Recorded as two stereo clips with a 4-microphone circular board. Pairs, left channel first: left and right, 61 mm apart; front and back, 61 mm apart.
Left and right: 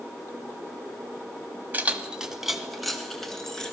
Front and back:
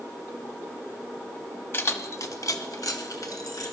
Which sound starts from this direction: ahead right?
Keys jangling, at 1.7 s.